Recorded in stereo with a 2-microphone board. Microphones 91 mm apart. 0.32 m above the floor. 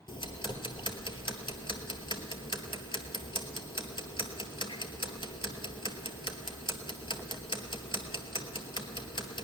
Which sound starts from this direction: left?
Ticking, at 0.1 s.